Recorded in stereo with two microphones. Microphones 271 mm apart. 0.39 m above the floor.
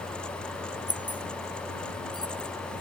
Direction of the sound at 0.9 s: 15° right (ahead or behind).